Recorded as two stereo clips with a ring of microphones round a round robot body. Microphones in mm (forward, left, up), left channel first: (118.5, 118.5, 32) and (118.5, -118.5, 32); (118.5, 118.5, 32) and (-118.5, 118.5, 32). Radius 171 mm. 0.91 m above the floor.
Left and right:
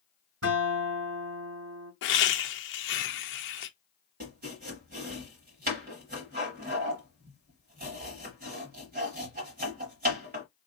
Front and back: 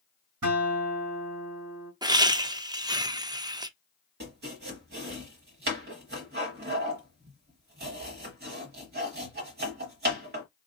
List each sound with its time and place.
0.4 s a guitar: 140° right, 3.5 m
2.0 s laughter: 110° left, 0.7 m
4.2 s chopping: 140° right, 0.9 m